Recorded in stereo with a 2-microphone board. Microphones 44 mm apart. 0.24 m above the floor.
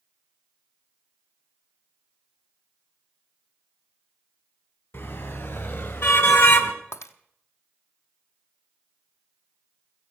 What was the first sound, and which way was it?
A car horn, 60° left (ahead or behind).